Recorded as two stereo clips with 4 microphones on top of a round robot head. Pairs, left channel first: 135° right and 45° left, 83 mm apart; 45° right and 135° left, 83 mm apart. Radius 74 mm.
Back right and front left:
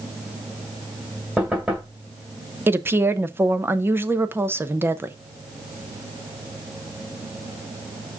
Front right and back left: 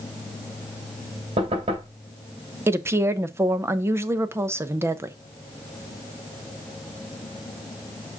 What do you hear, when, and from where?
1.4 s knocking: 125° left, 3 m
2.7 s a woman speaking: 95° left, 0.9 m